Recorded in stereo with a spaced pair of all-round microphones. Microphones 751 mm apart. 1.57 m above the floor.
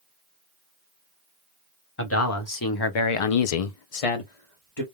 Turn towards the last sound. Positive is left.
turn(degrees=35)  # may be behind; listen again after turning